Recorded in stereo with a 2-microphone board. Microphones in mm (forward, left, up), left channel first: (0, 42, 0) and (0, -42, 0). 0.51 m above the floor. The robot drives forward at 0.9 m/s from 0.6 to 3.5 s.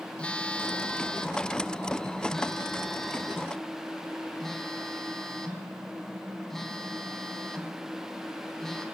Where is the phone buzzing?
15° left (ahead or behind), 1.3 m; by 8.8 s 5° left (ahead or behind), 3.5 m.